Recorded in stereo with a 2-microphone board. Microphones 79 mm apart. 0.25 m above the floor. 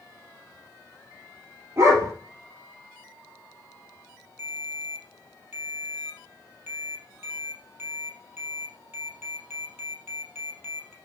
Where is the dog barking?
35° right (ahead or behind), 3 m.